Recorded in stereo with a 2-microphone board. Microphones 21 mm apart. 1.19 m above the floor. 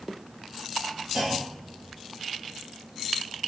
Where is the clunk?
25° right (ahead or behind), 6 m.